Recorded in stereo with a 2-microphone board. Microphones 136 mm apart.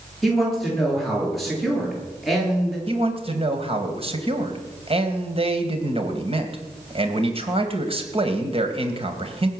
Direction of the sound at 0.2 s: Centre (ahead or behind).